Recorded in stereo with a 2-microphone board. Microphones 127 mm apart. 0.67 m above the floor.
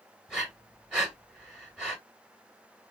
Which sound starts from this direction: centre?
Breathing, at 0.3 s.